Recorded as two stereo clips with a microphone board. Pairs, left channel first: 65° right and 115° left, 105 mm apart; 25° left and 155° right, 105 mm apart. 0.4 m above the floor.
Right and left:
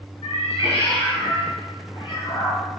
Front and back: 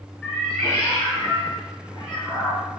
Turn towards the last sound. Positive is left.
turn(degrees=-20)